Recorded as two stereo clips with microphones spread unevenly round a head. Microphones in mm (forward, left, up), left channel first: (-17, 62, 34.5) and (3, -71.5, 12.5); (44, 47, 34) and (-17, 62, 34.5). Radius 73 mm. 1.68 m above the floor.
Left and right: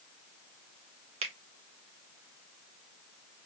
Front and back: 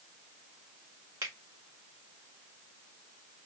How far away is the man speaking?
I don't hear a man speaking.